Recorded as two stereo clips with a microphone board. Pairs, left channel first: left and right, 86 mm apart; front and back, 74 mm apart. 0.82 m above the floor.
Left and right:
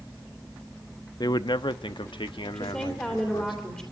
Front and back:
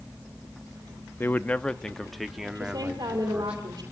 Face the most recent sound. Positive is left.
turn(degrees=165)